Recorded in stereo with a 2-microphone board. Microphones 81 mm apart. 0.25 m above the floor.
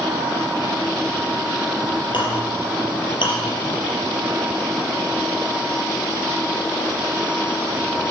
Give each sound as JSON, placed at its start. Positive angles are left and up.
{"t": 2.1, "sound": "a clink", "side_deg": 75, "distance_m": 4.5}